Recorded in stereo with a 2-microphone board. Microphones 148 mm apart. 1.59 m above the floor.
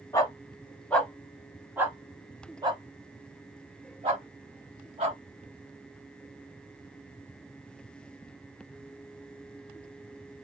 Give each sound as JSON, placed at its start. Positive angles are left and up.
{"t": 0.1, "sound": "a dog barking", "side_deg": 20, "distance_m": 1.2}